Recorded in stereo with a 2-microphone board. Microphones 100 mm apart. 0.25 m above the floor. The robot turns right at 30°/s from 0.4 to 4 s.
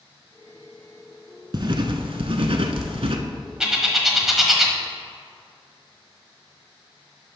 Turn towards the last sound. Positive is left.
turn(degrees=-5)  # may be behind; listen again after turning